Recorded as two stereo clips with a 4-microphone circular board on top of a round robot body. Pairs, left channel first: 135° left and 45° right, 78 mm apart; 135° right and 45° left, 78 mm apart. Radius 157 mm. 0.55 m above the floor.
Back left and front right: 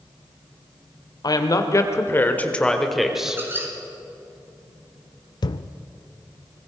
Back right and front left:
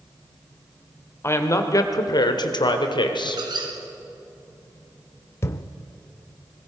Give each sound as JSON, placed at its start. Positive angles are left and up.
{"t": 1.2, "sound": "a woman speaking", "azimuth_deg": 170, "distance_m": 2.0}
{"t": 3.3, "sound": "a squeak", "azimuth_deg": 20, "distance_m": 3.0}
{"t": 5.4, "sound": "a thud", "azimuth_deg": 170, "distance_m": 0.5}